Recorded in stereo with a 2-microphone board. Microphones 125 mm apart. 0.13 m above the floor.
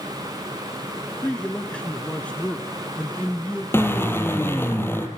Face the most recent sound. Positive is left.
turn(degrees=20)  # may be behind; listen again after turning